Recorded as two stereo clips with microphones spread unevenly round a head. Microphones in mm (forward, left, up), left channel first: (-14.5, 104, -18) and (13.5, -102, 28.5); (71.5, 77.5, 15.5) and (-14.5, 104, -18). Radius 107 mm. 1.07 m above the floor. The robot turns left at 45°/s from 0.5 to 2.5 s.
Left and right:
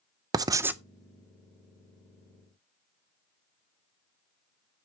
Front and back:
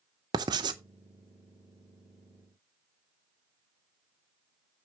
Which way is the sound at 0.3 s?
160° right.